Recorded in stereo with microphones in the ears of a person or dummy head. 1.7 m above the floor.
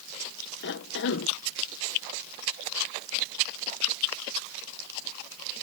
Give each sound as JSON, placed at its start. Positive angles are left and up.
{"t": 0.6, "sound": "a cough", "side_deg": 60}